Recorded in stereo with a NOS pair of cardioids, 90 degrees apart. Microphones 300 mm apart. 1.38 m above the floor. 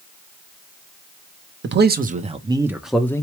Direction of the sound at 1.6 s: 40° right.